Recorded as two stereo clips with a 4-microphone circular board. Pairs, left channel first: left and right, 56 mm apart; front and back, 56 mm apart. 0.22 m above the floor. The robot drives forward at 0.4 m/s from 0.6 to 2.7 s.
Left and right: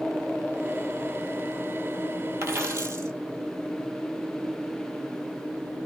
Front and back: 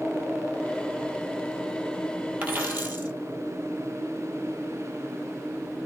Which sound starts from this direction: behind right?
A dropped coin, at 2.4 s.